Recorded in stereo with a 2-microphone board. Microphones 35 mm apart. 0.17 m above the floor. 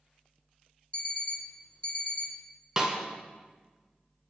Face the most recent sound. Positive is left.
turn(degrees=-20)  # may be behind; listen again after turning